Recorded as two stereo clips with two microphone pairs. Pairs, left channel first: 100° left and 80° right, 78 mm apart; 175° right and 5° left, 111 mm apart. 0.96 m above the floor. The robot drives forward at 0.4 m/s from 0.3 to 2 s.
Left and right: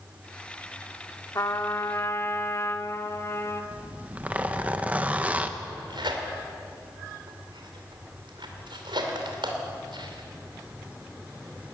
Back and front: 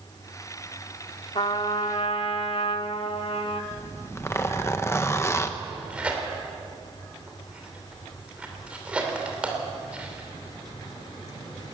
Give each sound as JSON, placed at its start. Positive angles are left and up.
{"t": 1.4, "sound": "a trumpet", "azimuth_deg": 150, "distance_m": 1.1}
{"t": 3.7, "sound": "a zipper", "azimuth_deg": -130, "distance_m": 1.0}
{"t": 5.6, "sound": "tearing paper", "azimuth_deg": -75, "distance_m": 3.0}